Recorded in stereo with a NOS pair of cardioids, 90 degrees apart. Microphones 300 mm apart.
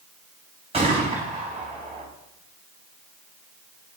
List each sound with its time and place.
0.7 s a gunshot: 20° right, 4.5 m